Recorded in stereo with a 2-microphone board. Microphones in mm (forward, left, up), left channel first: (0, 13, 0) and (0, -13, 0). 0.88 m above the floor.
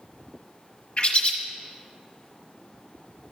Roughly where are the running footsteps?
No running footsteps in this recording.